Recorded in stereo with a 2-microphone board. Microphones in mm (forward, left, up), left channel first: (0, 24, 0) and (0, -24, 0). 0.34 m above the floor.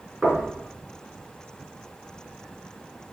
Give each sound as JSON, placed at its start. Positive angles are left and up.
{"t": 0.2, "sound": "knocking", "side_deg": -5, "distance_m": 4.0}